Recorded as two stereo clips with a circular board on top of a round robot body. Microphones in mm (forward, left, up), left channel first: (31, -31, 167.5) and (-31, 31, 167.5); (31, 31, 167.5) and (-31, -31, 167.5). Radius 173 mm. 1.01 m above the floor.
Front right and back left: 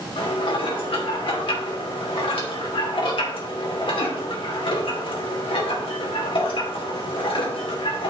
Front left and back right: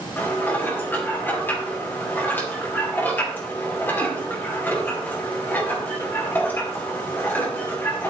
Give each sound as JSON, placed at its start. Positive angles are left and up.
{"t": 0.2, "sound": "dishes clattering", "azimuth_deg": -25, "distance_m": 2.5}